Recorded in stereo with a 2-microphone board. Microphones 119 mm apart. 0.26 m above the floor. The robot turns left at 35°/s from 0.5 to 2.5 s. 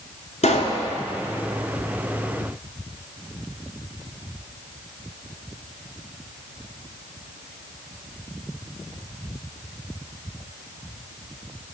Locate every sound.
0.4 s a pop: 75° left (ahead or behind), 1.1 m; by 0.8 s 65° left (ahead or behind), 1.1 m